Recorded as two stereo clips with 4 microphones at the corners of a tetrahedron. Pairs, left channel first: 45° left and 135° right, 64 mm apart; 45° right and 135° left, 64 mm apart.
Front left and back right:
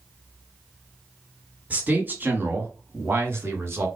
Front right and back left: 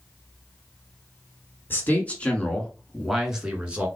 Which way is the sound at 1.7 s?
80° right.